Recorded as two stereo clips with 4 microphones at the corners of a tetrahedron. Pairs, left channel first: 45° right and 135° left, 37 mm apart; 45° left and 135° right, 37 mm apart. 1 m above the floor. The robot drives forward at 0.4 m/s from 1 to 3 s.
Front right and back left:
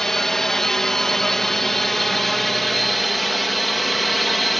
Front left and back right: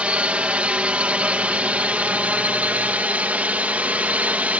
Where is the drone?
120° right; by 4.6 s 135° right.